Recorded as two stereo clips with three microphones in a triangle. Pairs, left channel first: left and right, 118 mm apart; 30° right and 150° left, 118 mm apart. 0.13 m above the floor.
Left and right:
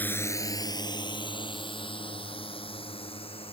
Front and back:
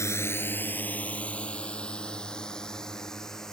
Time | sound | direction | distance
0.0 | a drone | 20° left | ?